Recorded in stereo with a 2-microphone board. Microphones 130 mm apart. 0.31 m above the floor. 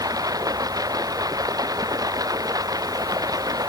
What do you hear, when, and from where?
0.0 s running water: 30° right (ahead or behind)